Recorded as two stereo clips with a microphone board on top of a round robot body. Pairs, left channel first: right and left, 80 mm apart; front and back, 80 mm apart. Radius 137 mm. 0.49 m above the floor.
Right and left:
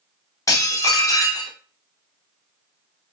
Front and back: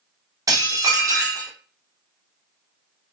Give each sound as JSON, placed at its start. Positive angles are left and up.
{"t": 0.5, "sound": "dishes clattering", "azimuth_deg": -135, "distance_m": 0.9}